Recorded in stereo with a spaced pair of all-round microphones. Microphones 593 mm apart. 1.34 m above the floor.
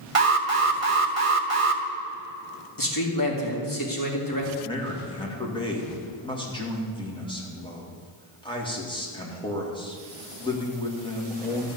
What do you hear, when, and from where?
0.1 s an alarm: 65° right (ahead or behind), 1.0 m
2.8 s a man speaking: 35° left (ahead or behind), 2.5 m
4.6 s a man speaking: 10° left (ahead or behind), 2 m